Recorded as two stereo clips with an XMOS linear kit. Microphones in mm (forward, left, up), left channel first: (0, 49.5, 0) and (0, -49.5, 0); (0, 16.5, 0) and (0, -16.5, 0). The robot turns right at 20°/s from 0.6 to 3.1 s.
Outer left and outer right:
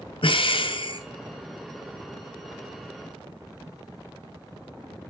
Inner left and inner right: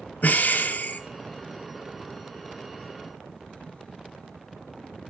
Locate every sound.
0.2 s breathing: 60° left (ahead or behind), 0.5 m; by 1.0 s 55° left (ahead or behind), 0.5 m